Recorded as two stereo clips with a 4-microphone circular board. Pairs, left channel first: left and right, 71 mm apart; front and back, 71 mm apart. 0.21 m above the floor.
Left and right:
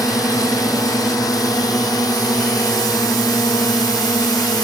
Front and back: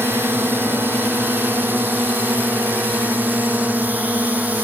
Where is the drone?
125° left; by 4.7 s 115° left.